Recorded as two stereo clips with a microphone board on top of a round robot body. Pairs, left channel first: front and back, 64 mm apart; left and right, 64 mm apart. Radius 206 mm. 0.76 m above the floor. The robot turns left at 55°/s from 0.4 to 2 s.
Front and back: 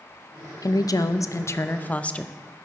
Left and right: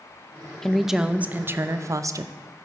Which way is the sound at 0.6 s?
10° left.